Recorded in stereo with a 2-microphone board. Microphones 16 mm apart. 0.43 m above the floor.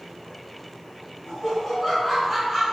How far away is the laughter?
About 1.6 m.